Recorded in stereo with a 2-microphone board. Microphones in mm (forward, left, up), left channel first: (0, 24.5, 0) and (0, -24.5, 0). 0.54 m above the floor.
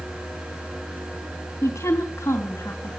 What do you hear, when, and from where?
1.6 s a woman speaking: 80° left, 3.5 m